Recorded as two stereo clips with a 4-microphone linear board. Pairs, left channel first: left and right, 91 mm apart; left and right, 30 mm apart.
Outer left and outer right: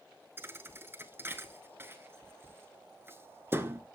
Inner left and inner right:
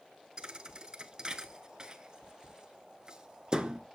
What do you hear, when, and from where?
0.4 s a thud: 30° right (ahead or behind), 0.6 m